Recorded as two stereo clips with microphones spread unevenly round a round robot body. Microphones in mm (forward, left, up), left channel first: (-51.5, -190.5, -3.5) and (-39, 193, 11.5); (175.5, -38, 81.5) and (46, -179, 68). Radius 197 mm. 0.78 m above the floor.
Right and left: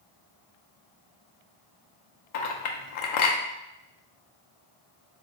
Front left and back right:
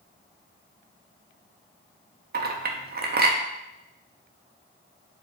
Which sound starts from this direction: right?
A clink, at 2.3 s.